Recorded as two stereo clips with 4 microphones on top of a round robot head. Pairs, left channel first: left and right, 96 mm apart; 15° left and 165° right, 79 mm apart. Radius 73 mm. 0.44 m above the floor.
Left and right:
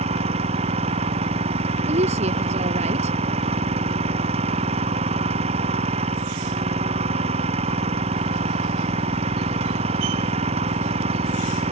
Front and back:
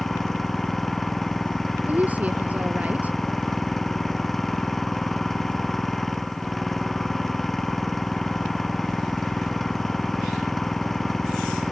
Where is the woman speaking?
90° right.